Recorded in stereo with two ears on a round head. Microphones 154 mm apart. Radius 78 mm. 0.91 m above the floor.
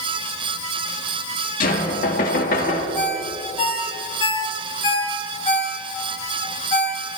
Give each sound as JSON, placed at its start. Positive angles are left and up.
{"t": 1.6, "sound": "knocking", "side_deg": 55, "distance_m": 1.4}
{"t": 3.0, "sound": "a ringtone", "side_deg": 30, "distance_m": 1.8}